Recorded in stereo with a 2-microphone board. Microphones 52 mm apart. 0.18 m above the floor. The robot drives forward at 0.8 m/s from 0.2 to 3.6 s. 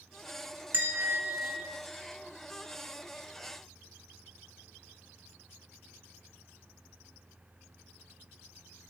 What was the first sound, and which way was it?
A bell, 40° right (ahead or behind).